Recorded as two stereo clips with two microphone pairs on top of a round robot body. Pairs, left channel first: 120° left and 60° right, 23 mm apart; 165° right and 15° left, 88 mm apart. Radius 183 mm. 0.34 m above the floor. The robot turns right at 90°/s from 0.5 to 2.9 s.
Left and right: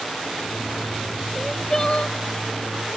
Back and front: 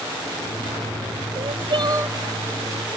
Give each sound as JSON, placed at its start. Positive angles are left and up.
{"t": 1.4, "sound": "crying", "azimuth_deg": 15}